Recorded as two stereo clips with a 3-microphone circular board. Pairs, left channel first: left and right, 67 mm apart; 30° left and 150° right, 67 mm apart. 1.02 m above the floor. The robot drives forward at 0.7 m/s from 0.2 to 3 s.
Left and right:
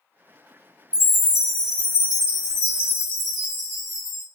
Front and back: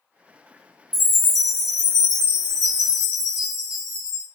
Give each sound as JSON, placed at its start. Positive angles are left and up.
{"t": 0.9, "sound": "a chime", "azimuth_deg": -165, "distance_m": 1.3}